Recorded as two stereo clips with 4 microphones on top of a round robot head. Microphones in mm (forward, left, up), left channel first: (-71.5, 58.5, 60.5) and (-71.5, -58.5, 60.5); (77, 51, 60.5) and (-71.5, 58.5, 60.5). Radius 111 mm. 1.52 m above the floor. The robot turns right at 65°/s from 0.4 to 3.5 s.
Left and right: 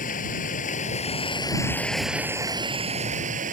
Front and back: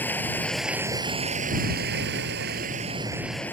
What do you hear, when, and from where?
0.0 s running water: 75° left; by 3.5 s 85° right